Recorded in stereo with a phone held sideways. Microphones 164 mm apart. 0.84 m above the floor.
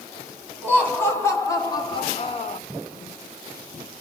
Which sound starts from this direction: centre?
Laughter, at 0.6 s.